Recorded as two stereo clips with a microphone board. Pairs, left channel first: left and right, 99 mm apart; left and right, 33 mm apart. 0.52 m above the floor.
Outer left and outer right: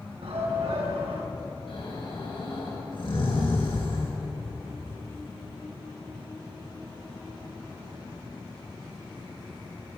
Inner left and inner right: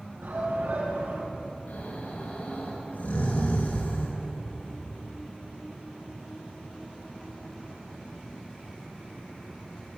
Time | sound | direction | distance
0.2 | a shout | 80° right | 6 m
1.7 | snoring | 55° left (ahead or behind) | 9 m